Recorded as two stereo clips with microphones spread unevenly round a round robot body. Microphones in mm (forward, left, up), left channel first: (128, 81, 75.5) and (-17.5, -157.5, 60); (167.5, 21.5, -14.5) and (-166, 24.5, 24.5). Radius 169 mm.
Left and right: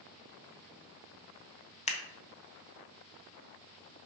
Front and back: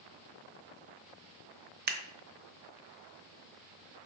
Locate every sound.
1.9 s scissors: 120° left, 1.0 m